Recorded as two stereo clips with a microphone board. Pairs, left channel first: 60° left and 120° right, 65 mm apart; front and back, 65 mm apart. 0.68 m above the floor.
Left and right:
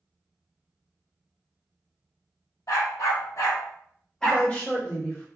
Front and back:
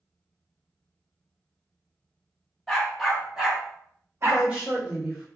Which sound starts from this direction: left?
A dog barking, at 2.7 s.